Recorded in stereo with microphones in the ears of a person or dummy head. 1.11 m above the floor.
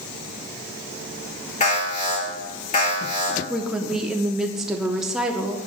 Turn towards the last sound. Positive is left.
turn(degrees=-10)  # may be behind; listen again after turning